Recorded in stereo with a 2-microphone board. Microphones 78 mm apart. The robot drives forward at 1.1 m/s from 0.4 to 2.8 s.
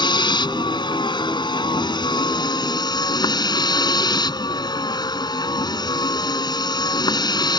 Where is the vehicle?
75° left (ahead or behind); by 7.6 s 65° left (ahead or behind).